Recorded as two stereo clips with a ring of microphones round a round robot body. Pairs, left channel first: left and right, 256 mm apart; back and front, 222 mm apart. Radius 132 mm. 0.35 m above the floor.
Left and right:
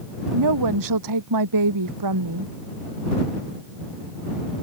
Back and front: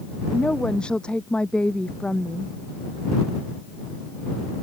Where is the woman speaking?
95° right.